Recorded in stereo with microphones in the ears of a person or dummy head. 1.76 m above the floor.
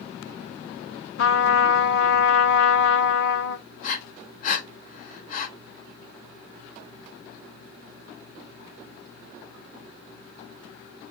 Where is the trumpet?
75° left (ahead or behind), 1.0 m.